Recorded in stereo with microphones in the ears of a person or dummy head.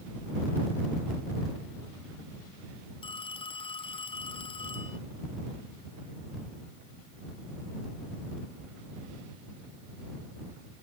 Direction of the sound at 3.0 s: 35° left (ahead or behind).